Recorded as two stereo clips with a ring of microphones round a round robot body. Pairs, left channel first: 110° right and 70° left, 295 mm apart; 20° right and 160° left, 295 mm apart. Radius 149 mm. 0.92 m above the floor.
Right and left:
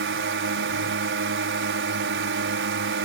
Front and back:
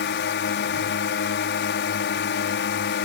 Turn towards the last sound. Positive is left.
turn(degrees=25)